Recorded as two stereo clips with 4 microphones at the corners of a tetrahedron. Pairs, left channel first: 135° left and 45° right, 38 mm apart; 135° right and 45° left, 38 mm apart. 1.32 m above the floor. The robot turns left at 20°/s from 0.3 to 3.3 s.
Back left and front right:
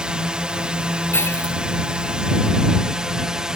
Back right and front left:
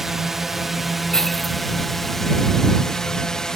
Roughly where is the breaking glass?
Behind left.